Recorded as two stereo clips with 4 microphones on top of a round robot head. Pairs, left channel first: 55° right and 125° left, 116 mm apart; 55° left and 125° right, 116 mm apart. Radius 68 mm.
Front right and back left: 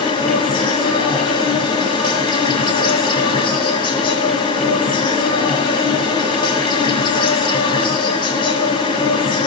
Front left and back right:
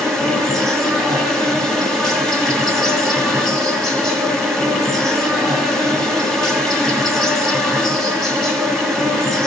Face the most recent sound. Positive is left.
turn(degrees=-35)